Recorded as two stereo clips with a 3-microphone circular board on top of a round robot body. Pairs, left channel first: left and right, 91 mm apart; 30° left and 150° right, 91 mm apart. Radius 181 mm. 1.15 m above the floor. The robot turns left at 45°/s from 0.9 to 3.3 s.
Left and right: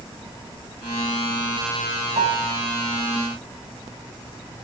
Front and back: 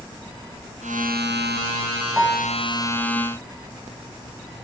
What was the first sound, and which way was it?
A piano, 65° right.